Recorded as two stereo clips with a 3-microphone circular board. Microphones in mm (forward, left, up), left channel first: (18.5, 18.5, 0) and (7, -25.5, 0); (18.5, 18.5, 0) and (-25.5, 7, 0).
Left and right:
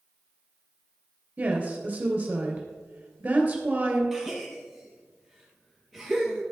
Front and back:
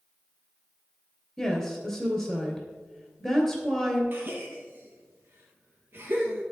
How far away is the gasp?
About 2.5 m.